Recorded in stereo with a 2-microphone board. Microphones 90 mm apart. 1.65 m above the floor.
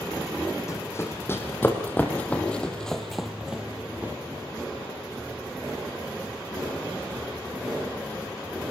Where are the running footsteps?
30° left (ahead or behind), 4 m; by 4.1 s 20° right (ahead or behind), 2.5 m.